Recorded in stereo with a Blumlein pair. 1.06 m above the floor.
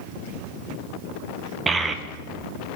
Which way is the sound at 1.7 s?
15° right.